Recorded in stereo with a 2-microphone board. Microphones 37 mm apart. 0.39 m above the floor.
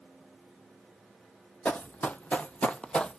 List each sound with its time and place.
1.6 s running footsteps: 45° left (ahead or behind), 0.6 m; by 3.2 s 20° left (ahead or behind), 0.6 m